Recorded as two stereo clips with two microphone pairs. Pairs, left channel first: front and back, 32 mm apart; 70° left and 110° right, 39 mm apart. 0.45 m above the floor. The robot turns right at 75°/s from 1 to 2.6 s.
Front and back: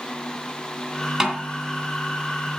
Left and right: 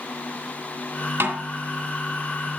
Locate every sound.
1.2 s a snare drum: 100° right, 2.5 m; by 1.5 s 80° right, 2.5 m